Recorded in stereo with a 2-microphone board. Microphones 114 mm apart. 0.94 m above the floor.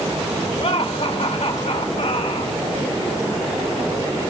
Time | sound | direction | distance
0.6 | laughter | 60° left (ahead or behind) | 3 m